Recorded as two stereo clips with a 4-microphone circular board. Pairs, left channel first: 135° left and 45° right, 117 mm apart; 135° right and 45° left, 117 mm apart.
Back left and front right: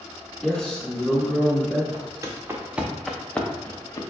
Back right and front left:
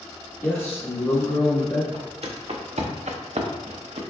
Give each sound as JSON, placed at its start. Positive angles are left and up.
{"t": 0.4, "sound": "a man speaking", "azimuth_deg": -150, "distance_m": 1.2}
{"t": 1.9, "sound": "footsteps", "azimuth_deg": 10, "distance_m": 1.0}